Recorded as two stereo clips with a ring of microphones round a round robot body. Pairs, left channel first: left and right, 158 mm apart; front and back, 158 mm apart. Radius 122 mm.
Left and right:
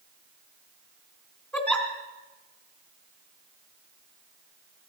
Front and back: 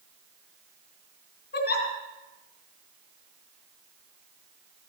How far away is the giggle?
About 3 m.